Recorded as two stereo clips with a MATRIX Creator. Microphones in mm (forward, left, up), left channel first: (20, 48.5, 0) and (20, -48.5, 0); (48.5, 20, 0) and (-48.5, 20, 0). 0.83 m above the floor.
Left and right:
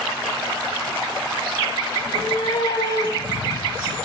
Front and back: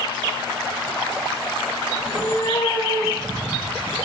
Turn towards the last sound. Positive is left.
turn(degrees=60)